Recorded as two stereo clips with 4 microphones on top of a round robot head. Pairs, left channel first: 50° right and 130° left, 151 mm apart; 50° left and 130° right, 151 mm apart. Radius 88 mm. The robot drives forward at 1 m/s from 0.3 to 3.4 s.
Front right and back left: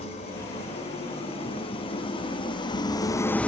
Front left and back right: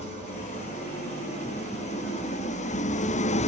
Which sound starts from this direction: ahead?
An engine running, at 0.0 s.